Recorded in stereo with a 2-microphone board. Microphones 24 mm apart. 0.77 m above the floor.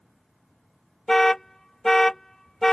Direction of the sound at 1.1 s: 20° left (ahead or behind).